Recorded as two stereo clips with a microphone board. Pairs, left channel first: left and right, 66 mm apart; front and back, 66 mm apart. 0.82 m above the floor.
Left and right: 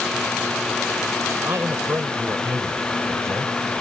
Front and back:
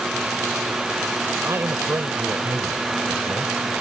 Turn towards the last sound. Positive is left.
turn(degrees=-130)